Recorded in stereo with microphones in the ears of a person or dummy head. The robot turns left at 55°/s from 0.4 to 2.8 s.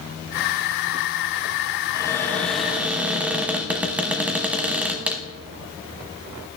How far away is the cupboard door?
About 0.9 m.